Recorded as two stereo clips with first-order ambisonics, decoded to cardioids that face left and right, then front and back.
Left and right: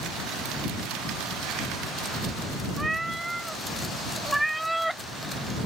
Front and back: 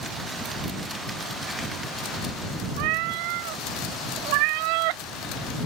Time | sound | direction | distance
2.8 | a cat meowing | 170° right | ?